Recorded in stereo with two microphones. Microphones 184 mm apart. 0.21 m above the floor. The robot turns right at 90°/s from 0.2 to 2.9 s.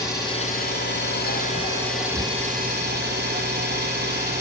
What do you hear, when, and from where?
0.0 s an engine running: 20° left, 1.3 m; by 4.4 s 100° right, 1.3 m